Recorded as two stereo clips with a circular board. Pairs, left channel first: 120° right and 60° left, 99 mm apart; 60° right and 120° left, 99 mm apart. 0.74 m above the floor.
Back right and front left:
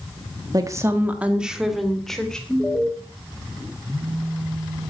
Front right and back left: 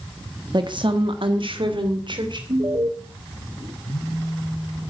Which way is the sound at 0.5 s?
95° left.